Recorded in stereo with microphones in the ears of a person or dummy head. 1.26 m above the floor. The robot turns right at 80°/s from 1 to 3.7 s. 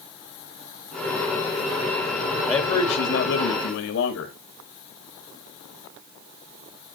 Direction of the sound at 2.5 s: 20° left.